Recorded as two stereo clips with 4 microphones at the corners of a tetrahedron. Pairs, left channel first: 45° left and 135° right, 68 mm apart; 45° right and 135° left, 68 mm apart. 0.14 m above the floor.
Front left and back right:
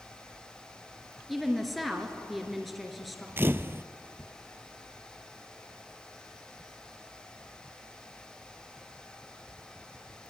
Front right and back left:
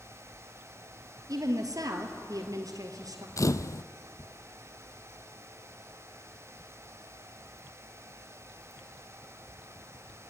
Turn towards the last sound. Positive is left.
turn(degrees=-80)